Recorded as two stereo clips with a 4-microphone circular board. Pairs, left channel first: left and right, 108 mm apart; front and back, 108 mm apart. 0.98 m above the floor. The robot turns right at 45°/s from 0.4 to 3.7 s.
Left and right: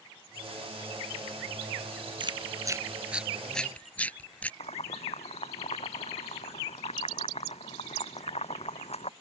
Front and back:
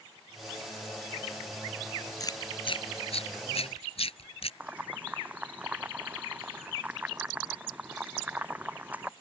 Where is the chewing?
55° right; by 4.5 s 15° left.